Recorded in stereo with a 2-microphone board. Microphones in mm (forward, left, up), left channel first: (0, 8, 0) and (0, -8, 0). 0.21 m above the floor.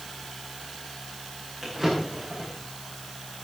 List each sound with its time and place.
1.6 s a drawer: 20° right (ahead or behind), 9.5 m